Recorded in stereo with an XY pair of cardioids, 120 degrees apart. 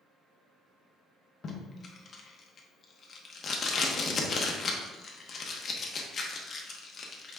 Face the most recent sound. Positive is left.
turn(degrees=40)